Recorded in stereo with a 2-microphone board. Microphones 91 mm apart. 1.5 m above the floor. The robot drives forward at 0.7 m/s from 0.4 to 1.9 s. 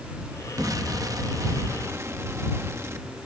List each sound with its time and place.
0.6 s an explosion: 40° right (ahead or behind); by 3.1 s 30° right (ahead or behind)